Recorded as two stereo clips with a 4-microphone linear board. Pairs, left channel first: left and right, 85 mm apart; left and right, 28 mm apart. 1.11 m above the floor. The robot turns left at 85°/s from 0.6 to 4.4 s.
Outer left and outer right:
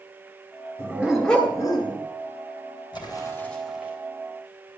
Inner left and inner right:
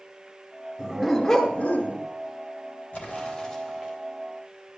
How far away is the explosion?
About 3.5 m.